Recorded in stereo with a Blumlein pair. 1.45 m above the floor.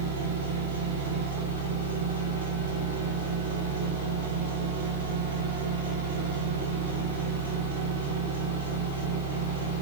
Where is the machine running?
65° right, 3.5 m.